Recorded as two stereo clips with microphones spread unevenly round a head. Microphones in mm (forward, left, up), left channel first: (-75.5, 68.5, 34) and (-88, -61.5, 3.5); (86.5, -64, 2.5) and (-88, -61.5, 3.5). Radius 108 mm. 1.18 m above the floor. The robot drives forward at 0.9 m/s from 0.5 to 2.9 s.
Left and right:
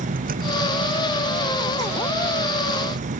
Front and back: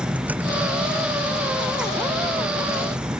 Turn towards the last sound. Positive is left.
turn(degrees=-100)